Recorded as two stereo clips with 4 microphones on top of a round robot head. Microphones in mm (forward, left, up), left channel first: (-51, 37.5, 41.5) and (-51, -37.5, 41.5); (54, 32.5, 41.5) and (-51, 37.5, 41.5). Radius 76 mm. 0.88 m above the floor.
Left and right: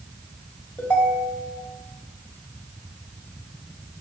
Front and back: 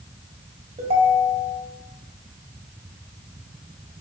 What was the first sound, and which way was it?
A ringtone, 150° left.